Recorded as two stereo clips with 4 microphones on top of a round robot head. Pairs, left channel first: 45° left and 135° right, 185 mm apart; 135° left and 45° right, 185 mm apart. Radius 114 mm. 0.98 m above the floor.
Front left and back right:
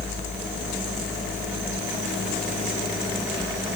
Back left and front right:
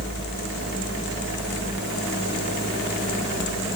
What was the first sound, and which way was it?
Only background noise.